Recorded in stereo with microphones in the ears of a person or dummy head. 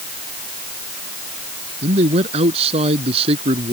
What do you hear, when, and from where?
1.8 s a man speaking: 30° right (ahead or behind); by 3.7 s 25° right (ahead or behind)